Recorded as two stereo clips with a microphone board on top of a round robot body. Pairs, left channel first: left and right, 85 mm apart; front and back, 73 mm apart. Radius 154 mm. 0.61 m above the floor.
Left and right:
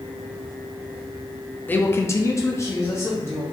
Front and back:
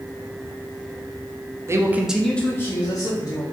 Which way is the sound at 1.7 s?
150° left.